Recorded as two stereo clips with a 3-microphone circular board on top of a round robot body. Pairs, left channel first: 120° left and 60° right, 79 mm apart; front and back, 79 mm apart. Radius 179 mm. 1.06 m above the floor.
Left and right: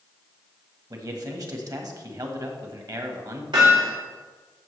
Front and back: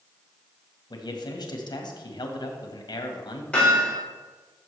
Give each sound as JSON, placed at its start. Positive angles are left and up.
{"t": 0.9, "sound": "a man speaking", "azimuth_deg": -25, "distance_m": 1.8}
{"t": 3.5, "sound": "hammering", "azimuth_deg": -75, "distance_m": 4.0}